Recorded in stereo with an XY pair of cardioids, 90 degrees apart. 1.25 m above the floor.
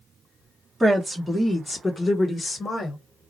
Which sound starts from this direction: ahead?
A woman speaking, at 0.8 s.